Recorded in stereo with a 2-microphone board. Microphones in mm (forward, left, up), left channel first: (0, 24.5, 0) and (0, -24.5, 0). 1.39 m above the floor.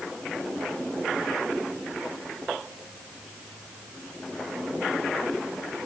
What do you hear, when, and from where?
Only background noise.